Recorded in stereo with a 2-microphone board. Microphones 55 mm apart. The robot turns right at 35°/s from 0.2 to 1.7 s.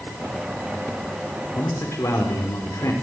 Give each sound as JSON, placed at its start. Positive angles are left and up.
{"t": 1.6, "sound": "a man speaking", "side_deg": 75, "distance_m": 4.0}